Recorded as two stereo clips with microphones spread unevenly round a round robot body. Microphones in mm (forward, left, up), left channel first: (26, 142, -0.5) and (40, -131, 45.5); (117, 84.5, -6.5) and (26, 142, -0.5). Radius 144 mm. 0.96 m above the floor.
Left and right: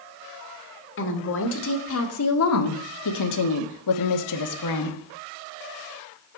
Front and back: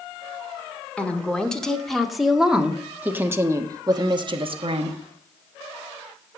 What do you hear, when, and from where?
1.0 s a woman speaking: 50° left, 2.5 m; by 5.0 s 125° left, 1.4 m